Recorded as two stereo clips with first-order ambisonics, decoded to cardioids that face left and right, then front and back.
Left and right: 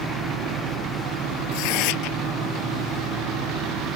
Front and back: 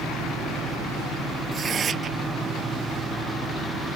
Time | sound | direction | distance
1.5 | tearing paper | 115° left | ?